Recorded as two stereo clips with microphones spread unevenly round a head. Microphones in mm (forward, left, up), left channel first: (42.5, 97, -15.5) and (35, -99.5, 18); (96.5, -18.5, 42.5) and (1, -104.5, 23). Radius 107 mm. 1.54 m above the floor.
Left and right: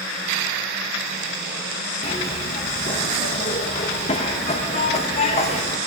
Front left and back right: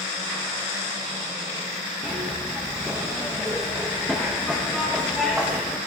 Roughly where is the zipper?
Behind left.